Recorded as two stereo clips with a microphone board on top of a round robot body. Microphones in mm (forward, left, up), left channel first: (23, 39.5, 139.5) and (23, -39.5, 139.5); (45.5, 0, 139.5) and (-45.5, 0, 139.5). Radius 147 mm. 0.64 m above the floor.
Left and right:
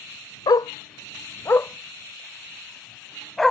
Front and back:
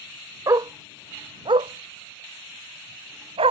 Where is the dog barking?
125° left; by 3.5 s straight behind.